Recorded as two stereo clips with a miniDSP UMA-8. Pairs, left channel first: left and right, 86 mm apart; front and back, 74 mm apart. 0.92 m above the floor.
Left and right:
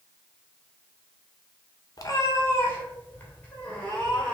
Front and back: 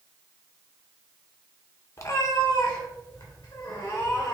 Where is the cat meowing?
45° left, 0.7 m; by 4.3 s 15° left, 1.9 m.